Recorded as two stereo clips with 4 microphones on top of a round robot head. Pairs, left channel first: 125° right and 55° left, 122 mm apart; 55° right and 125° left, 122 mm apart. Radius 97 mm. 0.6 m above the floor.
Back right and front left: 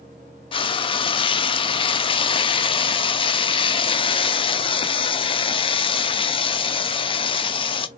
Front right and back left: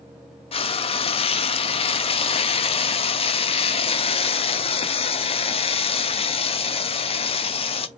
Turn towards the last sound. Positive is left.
turn(degrees=-85)